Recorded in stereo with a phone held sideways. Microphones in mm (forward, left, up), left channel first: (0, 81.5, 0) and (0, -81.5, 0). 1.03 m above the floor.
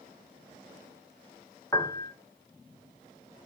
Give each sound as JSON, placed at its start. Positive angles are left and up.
{"t": 1.7, "sound": "a piano", "side_deg": 20, "distance_m": 0.6}